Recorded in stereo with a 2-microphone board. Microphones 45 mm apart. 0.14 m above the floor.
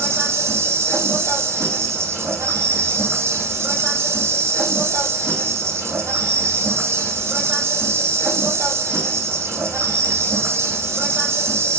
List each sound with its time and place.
0.0 s an insect: 70° right (ahead or behind), 3.5 m